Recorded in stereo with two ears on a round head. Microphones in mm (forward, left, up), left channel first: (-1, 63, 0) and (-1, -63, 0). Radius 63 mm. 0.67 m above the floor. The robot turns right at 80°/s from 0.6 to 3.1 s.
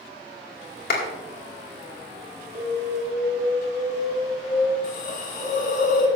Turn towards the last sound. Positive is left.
turn(degrees=65)  # may be behind; listen again after turning